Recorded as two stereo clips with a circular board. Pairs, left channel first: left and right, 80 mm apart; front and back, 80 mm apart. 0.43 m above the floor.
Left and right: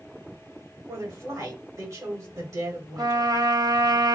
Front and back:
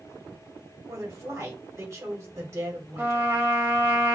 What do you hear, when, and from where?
0.9 s a woman speaking: 130° right, 2.5 m
3.0 s a trumpet: 120° right, 1.2 m